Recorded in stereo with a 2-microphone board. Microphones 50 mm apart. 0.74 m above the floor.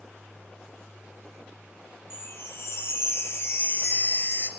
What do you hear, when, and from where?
2.1 s a chime: 55° left (ahead or behind), 0.5 m